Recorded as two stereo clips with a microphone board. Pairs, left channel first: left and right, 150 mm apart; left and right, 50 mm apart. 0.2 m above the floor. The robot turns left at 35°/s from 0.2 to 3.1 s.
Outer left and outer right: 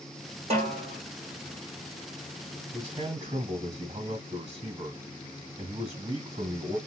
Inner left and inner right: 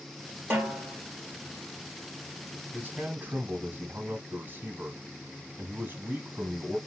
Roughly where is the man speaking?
Right.